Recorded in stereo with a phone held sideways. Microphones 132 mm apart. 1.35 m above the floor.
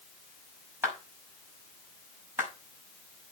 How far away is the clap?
About 6 m.